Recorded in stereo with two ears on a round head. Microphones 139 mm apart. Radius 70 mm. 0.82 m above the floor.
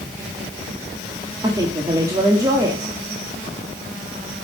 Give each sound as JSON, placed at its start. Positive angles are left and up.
{"t": 1.4, "sound": "a woman speaking", "side_deg": -25, "distance_m": 1.5}